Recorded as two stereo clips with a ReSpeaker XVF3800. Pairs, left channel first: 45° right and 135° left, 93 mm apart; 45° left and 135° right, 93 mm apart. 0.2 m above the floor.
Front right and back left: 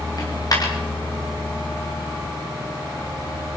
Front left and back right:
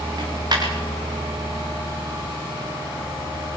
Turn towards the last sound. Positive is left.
turn(degrees=-90)